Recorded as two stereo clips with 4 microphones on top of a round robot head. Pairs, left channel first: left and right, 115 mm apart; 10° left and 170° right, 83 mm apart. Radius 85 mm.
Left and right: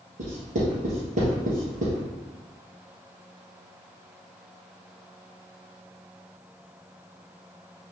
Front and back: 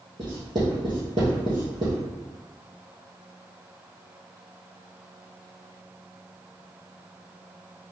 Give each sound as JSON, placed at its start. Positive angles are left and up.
{"t": 0.2, "sound": "writing", "azimuth_deg": -120, "distance_m": 2.0}